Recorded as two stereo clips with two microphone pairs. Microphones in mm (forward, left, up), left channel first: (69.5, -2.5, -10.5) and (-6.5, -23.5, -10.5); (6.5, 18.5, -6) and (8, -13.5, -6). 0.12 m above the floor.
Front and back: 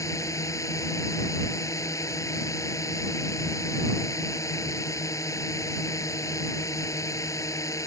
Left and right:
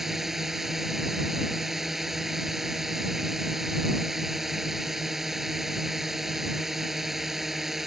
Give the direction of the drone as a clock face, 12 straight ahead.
12 o'clock.